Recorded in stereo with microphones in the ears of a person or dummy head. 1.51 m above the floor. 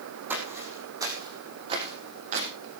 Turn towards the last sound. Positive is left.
turn(degrees=-40)  # may be behind; listen again after turning